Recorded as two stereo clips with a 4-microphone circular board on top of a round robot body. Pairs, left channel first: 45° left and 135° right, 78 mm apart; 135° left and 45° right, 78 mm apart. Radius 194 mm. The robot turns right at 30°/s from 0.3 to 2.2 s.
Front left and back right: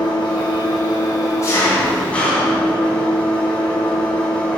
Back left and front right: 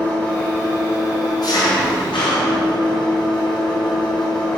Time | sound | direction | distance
0.0 | an engine running | 65° left | 3.5 m